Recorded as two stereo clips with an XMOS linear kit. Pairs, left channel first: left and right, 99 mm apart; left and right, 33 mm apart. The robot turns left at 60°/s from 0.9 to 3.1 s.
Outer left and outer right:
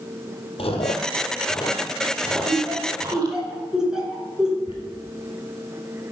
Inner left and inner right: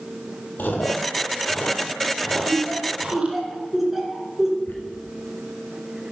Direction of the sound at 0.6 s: 75° left (ahead or behind).